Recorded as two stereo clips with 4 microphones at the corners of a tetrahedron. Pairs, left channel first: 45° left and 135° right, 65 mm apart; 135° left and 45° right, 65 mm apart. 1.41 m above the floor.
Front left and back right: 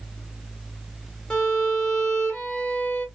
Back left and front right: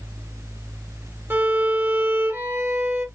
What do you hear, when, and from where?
1.3 s a violin: 25° right, 1.2 m